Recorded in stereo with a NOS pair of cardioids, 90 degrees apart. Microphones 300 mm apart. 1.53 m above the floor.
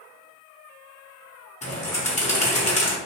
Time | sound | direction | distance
1.6 | a bird | 25° left | 1.1 m